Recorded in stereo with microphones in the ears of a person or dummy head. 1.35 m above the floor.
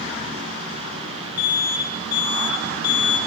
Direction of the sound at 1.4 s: 60° left (ahead or behind).